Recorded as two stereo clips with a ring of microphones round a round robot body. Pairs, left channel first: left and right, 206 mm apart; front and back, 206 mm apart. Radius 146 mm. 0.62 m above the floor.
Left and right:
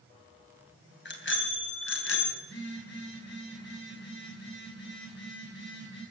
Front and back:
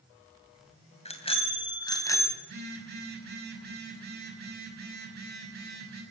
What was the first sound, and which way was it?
A bicycle bell, 60° left.